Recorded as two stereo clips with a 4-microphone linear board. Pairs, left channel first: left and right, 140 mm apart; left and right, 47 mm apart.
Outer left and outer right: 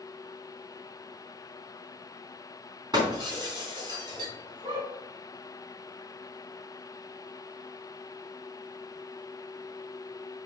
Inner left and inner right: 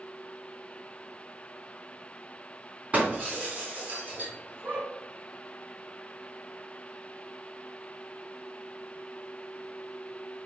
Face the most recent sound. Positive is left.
turn(degrees=-35)  # may be behind; listen again after turning